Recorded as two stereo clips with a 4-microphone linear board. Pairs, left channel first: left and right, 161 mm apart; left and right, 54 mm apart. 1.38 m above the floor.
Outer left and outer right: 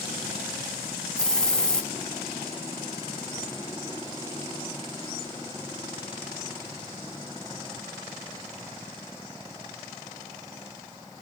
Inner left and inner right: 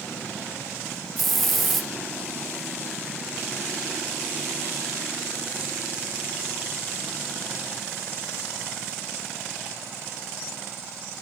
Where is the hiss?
5° left (ahead or behind), 0.7 m.